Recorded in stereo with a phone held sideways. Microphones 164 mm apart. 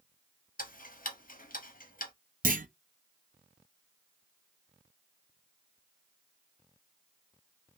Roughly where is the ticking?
Left.